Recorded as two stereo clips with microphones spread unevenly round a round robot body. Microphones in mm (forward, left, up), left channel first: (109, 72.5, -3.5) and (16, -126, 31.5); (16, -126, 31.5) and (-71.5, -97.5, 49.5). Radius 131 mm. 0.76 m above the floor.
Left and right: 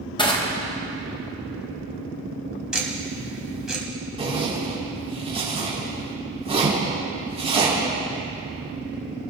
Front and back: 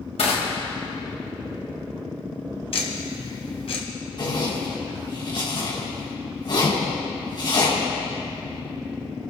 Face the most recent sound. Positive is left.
turn(degrees=-50)